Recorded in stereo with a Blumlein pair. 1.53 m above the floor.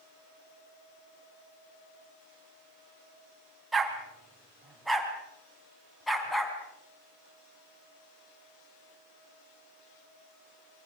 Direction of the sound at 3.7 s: 15° right.